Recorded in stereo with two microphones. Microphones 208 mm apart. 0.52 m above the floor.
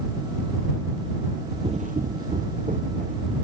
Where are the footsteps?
30° right (ahead or behind); by 3.3 s 35° right (ahead or behind).